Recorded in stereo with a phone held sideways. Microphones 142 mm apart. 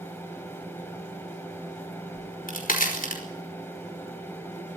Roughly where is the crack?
Left.